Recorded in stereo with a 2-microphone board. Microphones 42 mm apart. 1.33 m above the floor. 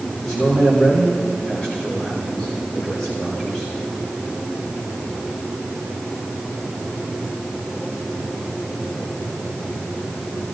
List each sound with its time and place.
0.2 s a man speaking: 15° left (ahead or behind), 5.5 m